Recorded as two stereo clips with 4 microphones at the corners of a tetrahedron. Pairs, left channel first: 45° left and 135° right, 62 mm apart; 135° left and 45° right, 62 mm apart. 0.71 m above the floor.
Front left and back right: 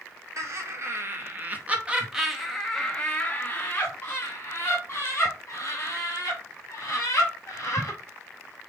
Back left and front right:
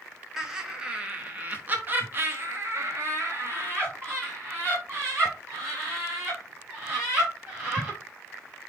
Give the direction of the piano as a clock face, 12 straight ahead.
I don't hear a piano.